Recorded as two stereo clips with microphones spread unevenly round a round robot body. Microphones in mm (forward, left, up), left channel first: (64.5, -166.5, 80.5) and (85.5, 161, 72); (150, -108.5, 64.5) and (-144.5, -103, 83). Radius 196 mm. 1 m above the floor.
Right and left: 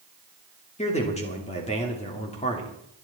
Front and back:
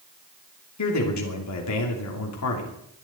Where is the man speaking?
25° right, 2.5 m.